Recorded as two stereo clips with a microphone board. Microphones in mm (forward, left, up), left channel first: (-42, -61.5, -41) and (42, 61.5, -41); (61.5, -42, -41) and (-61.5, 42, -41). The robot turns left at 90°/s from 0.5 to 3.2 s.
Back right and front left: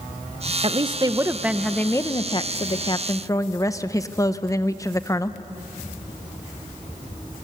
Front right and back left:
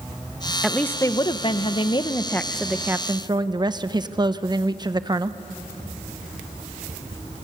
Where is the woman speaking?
55° left, 0.8 m; by 5.4 s 175° right, 0.8 m.